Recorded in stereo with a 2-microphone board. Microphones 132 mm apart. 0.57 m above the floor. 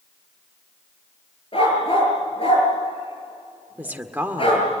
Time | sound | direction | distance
1.5 | a dog barking | 45° left (ahead or behind) | 4.5 m
3.8 | a woman speaking | 15° right (ahead or behind) | 1.8 m